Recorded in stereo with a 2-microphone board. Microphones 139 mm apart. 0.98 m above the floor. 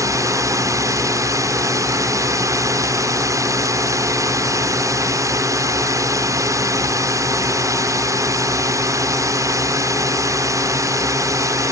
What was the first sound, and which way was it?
A drone, 20° right (ahead or behind).